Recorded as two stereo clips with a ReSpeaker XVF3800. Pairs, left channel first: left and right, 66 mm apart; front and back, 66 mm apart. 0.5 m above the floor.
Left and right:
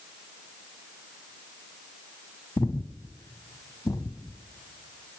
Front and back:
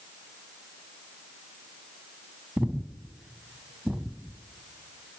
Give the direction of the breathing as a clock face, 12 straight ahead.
9 o'clock.